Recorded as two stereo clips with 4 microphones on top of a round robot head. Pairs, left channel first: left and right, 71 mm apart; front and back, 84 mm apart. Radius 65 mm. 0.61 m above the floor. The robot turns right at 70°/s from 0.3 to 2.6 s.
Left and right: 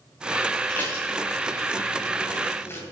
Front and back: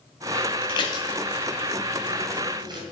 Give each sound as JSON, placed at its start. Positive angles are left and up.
{"t": 0.7, "sound": "dishes clattering", "azimuth_deg": 10, "distance_m": 2.5}